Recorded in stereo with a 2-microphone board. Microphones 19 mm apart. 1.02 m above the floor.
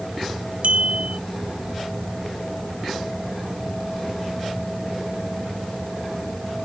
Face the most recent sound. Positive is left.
turn(degrees=-75)  # may be behind; listen again after turning